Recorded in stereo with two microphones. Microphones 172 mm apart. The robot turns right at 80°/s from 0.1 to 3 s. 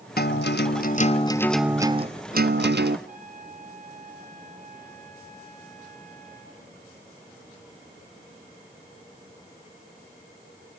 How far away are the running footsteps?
I don't hear running footsteps.